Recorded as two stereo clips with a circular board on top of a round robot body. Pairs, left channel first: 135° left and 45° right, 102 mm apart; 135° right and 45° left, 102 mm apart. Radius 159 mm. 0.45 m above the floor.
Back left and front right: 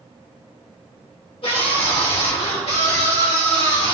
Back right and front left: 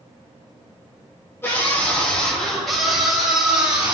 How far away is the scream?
About 2.5 m.